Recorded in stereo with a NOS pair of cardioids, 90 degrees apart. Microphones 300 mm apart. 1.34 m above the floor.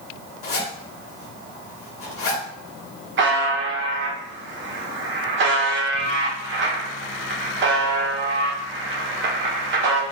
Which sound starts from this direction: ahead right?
A buzzer, at 3.2 s.